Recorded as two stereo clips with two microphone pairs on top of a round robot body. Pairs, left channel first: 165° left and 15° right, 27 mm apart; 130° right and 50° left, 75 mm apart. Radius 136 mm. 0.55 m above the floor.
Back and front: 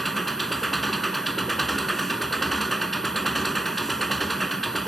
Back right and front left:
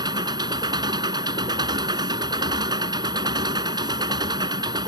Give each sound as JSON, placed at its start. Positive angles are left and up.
{"t": 0.0, "sound": "an engine running", "azimuth_deg": 80}